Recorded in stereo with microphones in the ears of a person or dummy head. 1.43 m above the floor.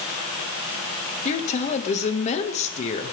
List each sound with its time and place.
1.2 s a woman speaking: 40° left (ahead or behind), 2.0 m